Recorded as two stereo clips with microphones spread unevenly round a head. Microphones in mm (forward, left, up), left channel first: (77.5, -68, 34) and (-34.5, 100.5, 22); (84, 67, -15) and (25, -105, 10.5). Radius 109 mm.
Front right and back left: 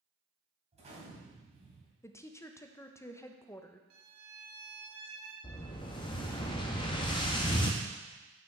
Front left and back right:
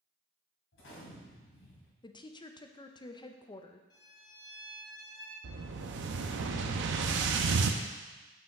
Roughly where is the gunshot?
Ahead left.